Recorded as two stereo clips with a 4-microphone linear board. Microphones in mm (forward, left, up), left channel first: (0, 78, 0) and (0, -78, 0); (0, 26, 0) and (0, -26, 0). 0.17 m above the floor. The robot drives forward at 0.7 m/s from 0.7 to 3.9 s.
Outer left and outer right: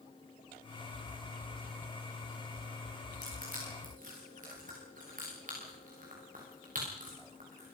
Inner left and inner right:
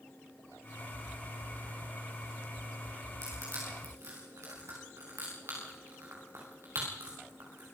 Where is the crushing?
60° right (ahead or behind), 9 m.